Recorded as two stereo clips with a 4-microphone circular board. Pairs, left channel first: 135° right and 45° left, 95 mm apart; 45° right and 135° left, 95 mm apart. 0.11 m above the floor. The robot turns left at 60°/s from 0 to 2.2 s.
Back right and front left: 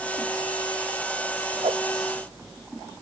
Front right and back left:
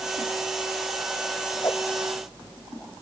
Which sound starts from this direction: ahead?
A whoosh, at 1.6 s.